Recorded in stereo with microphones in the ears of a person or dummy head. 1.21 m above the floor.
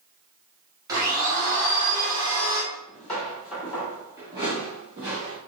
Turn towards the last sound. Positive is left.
turn(degrees=-40)  # may be behind; listen again after turning